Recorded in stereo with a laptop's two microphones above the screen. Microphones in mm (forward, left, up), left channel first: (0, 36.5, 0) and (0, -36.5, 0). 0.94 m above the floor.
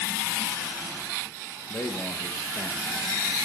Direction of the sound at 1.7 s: 35° left (ahead or behind).